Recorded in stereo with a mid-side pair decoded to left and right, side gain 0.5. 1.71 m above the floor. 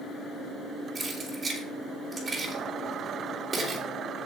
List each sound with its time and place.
0.9 s keys jangling: 35° right, 4 m